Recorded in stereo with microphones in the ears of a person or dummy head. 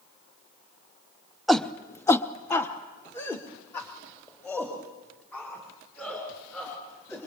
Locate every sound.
1.5 s a shout: centre (ahead or behind), 0.8 m; by 7.2 s 10° left (ahead or behind), 6 m